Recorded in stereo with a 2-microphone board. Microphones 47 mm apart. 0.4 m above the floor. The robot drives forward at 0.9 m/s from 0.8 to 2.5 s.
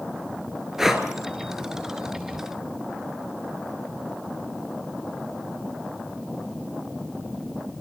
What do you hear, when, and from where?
0.8 s breathing: 10° right (ahead or behind), 2.5 m